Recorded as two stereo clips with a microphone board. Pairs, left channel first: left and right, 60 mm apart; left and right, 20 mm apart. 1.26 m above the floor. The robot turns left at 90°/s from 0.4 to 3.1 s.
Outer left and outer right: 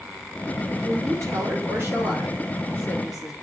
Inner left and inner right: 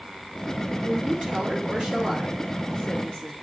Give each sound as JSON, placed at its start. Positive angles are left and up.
{"t": 0.8, "sound": "a woman speaking", "azimuth_deg": -50, "distance_m": 4.5}